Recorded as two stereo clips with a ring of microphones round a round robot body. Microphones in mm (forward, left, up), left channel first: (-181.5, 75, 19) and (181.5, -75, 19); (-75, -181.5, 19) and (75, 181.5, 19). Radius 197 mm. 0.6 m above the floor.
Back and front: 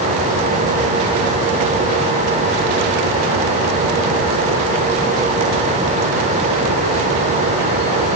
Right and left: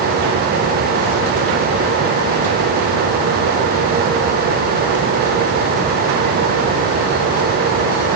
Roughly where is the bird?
No bird in this recording.